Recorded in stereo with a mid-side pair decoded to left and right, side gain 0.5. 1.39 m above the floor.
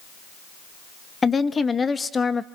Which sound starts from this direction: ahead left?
A woman speaking, at 1.2 s.